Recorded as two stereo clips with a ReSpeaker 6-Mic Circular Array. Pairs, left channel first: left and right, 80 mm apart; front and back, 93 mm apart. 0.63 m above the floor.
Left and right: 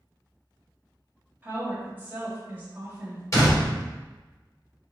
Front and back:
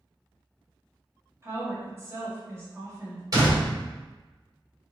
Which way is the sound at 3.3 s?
135° left.